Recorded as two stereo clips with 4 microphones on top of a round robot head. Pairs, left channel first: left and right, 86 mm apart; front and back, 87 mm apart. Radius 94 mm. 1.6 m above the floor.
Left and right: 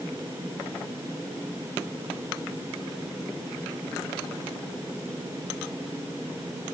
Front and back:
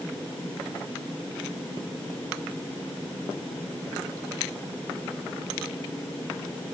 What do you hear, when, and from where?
Only background noise.